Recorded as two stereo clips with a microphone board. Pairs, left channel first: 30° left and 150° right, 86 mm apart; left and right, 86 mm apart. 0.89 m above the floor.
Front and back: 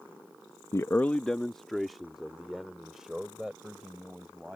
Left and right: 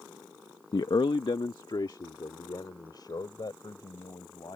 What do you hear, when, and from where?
0.7 s a man speaking: 75° left; by 4.6 s 130° left